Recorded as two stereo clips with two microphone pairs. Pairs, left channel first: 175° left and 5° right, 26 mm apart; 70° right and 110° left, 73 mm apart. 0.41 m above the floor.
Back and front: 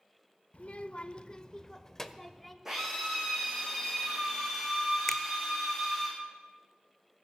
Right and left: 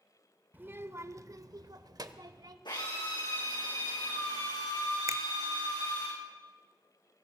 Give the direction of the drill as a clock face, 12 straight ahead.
3 o'clock.